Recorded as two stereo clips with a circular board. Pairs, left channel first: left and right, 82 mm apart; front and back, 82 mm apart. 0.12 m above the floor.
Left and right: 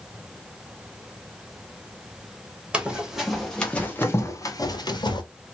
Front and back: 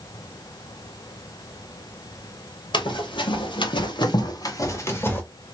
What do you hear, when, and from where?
2.7 s running footsteps: 15° right, 1.6 m; by 5.2 s 65° left, 1.4 m